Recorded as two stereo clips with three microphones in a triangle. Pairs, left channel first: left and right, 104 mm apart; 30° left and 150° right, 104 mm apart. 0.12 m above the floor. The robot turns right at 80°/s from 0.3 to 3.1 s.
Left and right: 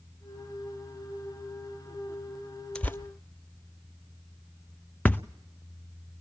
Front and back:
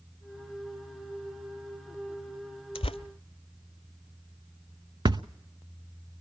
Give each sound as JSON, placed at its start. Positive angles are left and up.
{"t": 2.8, "sound": "tearing paper", "azimuth_deg": 5, "distance_m": 0.7}
{"t": 5.0, "sound": "a thud", "azimuth_deg": 165, "distance_m": 0.5}